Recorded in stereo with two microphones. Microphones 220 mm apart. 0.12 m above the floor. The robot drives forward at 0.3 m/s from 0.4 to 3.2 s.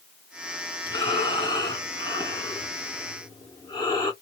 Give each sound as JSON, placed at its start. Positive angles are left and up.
{"t": 0.9, "sound": "breathing", "side_deg": 20, "distance_m": 1.3}